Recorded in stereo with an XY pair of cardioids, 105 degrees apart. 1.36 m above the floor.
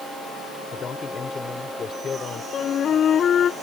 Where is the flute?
50° left.